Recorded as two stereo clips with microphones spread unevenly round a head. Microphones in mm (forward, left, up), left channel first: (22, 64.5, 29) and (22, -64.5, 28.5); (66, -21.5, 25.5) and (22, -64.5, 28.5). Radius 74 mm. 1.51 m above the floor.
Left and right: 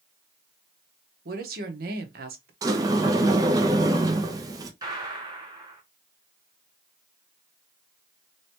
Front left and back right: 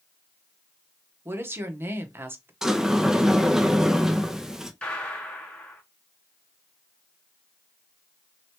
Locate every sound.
1.2 s a woman speaking: 85° right, 1.0 m
2.6 s a sliding door: 70° right, 0.5 m
4.8 s a gunshot: 30° right, 1.5 m